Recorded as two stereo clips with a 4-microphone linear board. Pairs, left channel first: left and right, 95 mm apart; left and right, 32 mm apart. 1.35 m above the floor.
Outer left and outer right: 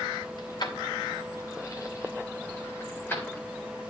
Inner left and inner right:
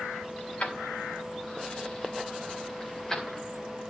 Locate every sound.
0.4 s keys jangling: 50° left (ahead or behind), 2.5 m; by 3.4 s 15° left (ahead or behind), 3 m